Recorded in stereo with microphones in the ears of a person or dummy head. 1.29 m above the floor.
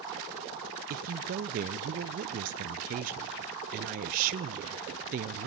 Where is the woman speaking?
45° right (ahead or behind), 0.6 m.